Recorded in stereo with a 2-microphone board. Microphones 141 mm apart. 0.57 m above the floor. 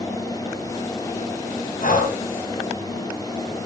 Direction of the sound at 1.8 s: 80° left.